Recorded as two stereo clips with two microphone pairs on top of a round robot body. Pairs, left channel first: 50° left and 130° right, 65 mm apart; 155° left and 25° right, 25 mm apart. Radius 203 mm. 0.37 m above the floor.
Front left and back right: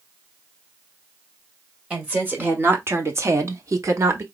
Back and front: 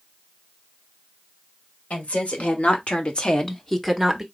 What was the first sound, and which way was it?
A woman speaking, 160° left.